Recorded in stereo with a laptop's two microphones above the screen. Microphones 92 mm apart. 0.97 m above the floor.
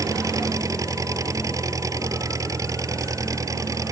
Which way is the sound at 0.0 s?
35° right (ahead or behind).